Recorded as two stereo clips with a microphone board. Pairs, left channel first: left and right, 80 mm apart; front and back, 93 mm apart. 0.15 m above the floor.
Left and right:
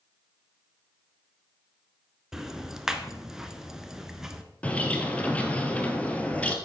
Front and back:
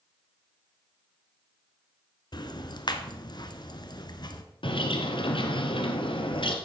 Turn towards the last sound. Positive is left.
turn(degrees=15)